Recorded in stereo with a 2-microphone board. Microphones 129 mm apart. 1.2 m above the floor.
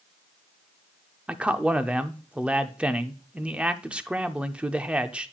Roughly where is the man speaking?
Centre.